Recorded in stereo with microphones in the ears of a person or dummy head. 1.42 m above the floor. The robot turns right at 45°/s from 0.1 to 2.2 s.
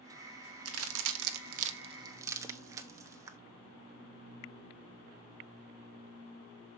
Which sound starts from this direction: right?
A crack, at 0.7 s.